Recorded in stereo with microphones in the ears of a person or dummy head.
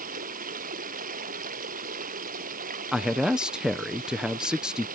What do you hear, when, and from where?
0.0 s running water: 50° right (ahead or behind)
2.9 s a man speaking: 10° right (ahead or behind)